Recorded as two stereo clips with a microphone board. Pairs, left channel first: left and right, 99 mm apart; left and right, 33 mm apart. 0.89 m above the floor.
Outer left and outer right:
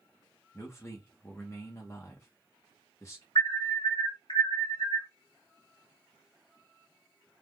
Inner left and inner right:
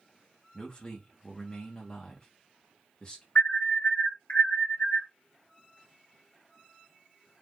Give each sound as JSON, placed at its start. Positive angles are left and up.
{"t": 0.5, "sound": "a man speaking", "side_deg": 30, "distance_m": 1.0}
{"t": 3.4, "sound": "an alarm", "side_deg": 55, "distance_m": 1.3}